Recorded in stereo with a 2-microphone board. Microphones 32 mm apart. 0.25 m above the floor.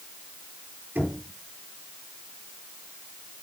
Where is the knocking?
75° right (ahead or behind), 4.5 m.